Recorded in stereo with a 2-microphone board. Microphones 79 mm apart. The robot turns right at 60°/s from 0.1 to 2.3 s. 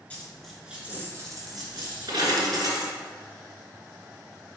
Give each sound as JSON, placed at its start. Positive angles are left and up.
{"t": 0.1, "sound": "a dropped coin", "side_deg": 20, "distance_m": 1.7}